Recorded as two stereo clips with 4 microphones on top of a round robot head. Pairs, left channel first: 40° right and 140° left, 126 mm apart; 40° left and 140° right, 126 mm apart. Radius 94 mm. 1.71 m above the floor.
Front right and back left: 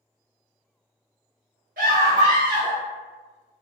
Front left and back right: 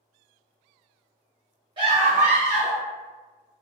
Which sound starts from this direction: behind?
A scream, at 1.8 s.